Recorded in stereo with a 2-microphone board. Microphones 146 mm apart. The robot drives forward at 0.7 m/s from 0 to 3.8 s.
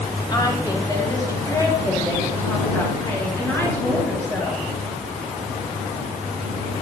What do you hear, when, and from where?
0.3 s a woman speaking: 30° left (ahead or behind), 1.9 m; by 4.7 s 15° left (ahead or behind), 4 m